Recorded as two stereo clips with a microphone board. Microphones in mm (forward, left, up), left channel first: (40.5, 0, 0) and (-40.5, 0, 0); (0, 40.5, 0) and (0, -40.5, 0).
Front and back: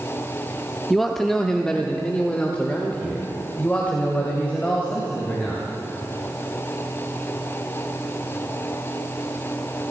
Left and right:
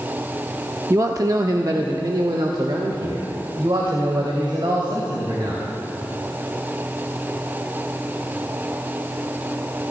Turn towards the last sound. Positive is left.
turn(degrees=-70)